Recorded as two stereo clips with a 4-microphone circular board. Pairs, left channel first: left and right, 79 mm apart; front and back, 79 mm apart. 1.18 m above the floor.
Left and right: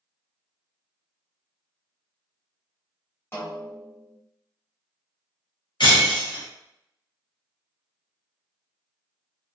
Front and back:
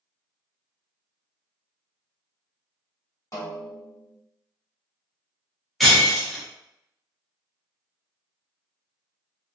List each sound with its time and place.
3.3 s a snare drum: 35° left, 1.1 m
5.8 s breaking glass: 90° left, 0.8 m